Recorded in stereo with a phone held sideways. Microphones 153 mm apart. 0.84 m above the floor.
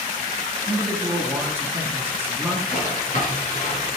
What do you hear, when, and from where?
0.7 s a man speaking: 15° right (ahead or behind), 1.2 m
2.7 s a drawer: 50° left (ahead or behind), 3.5 m